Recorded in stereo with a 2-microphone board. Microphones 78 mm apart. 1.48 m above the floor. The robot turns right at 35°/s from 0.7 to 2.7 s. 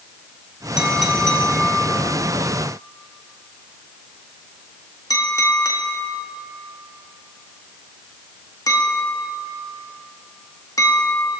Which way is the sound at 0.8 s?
10° right (ahead or behind).